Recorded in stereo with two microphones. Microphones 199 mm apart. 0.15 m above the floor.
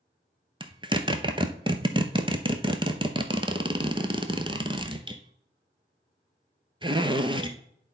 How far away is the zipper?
About 0.7 m.